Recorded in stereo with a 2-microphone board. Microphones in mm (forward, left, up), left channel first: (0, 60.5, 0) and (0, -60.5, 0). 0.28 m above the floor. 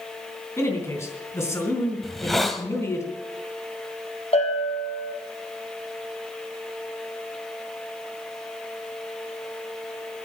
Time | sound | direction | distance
0.6 | a man speaking | 20° left (ahead or behind) | 3.5 m
2.0 | a hiss | centre (ahead or behind) | 1.3 m
4.3 | a bell | 55° left (ahead or behind) | 4 m